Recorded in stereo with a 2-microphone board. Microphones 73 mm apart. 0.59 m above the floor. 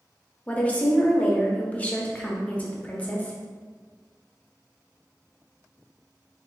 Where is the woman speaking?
20° left (ahead or behind), 0.8 m.